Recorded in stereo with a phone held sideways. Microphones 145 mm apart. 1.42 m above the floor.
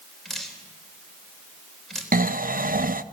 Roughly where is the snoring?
Right.